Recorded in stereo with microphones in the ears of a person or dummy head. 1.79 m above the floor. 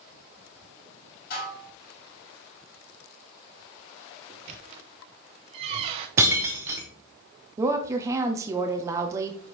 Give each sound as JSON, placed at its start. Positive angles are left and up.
{"t": 1.3, "sound": "dishes clattering", "side_deg": 60, "distance_m": 4.0}
{"t": 4.3, "sound": "a squeak", "side_deg": -20, "distance_m": 0.6}
{"t": 6.2, "sound": "breaking glass", "side_deg": -10, "distance_m": 0.9}
{"t": 7.6, "sound": "a woman speaking", "side_deg": -15, "distance_m": 0.8}